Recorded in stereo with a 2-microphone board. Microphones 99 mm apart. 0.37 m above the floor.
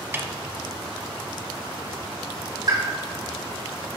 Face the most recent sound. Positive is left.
turn(degrees=-45)  # may be behind; listen again after turning